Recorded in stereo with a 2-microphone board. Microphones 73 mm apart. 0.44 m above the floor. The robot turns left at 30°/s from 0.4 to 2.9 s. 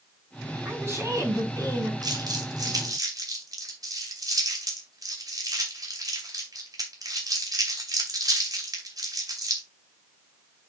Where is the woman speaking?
25° right, 4 m; by 1.9 s 65° right, 4 m.